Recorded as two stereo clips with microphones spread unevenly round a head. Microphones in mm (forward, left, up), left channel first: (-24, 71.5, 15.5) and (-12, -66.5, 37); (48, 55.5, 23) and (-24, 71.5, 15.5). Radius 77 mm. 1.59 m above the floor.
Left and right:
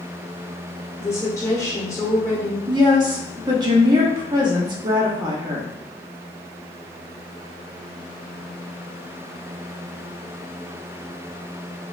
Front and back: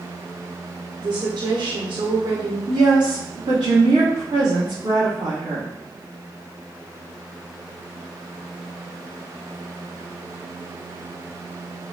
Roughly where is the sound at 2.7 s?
Behind right.